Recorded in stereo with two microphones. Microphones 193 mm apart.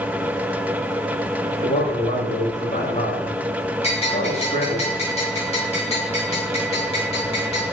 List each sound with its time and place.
1.5 s a man speaking: 35° left (ahead or behind), 4 m
3.8 s a bell: 30° left (ahead or behind), 5 m